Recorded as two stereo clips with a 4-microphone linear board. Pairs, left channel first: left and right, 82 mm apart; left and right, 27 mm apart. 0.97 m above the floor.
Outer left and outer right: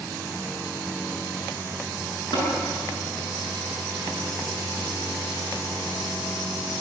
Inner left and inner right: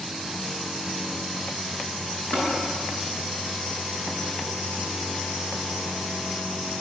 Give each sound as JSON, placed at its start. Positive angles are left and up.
{"t": 2.3, "sound": "tapping", "side_deg": 65, "distance_m": 9.0}